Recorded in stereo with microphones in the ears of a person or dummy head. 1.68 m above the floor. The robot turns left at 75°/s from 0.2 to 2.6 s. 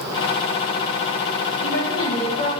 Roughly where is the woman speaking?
Left.